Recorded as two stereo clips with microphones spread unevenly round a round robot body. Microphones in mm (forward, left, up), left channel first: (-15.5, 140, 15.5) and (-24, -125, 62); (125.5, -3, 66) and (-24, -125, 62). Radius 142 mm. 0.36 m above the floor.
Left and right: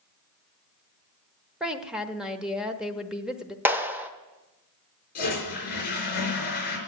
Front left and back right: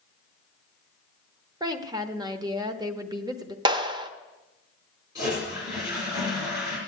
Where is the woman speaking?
165° left, 1.1 m.